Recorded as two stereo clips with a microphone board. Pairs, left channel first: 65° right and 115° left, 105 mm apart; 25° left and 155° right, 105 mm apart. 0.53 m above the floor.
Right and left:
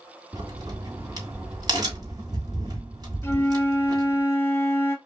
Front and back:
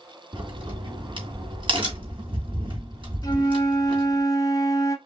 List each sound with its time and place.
0.3 s a crack: 165° left, 2.5 m
3.2 s a flute: 10° right, 0.9 m